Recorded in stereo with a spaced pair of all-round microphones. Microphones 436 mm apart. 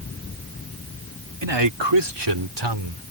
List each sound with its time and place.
1.4 s a man speaking: 75° right (ahead or behind); by 3.0 s 65° right (ahead or behind)